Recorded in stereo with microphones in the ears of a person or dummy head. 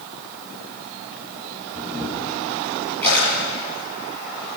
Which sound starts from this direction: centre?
A camera shutter, at 1.8 s.